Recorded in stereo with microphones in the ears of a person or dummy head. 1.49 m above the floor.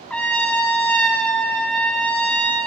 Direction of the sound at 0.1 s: 10° left (ahead or behind).